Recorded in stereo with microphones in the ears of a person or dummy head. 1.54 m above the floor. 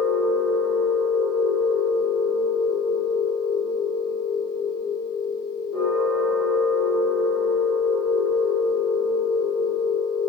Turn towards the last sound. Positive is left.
turn(degrees=-5)  # may be behind; listen again after turning